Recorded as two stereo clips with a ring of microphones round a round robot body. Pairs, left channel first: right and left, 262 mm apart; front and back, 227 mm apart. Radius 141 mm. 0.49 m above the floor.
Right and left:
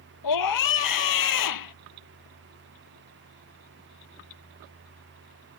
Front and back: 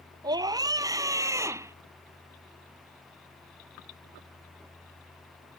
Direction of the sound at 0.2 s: 105° right.